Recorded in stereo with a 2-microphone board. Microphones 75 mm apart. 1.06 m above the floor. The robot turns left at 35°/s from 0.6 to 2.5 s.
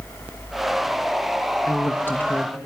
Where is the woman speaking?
45° left (ahead or behind), 1.1 m; by 2.6 s 15° left (ahead or behind), 1.1 m.